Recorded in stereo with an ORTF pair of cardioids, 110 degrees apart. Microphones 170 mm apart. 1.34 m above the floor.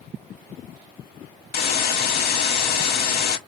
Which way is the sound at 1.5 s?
60° left.